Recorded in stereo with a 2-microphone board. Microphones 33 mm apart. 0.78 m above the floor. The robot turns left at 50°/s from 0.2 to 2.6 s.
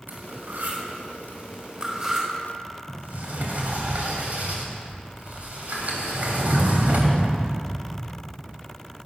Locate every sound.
0.1 s cutlery clinking: 60° right (ahead or behind), 4 m; by 2.3 s 15° right (ahead or behind), 4 m
2.9 s a sliding door: 55° right (ahead or behind), 2.5 m